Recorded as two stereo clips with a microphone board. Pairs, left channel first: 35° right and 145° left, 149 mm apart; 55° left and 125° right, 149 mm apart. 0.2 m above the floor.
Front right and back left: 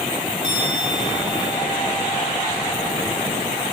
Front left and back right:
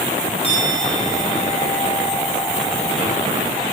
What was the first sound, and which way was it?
A bell, 105° left.